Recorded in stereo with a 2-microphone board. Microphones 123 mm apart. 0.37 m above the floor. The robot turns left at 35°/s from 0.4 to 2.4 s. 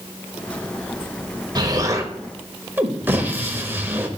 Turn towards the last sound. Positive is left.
turn(degrees=-15)  # may be behind; listen again after turning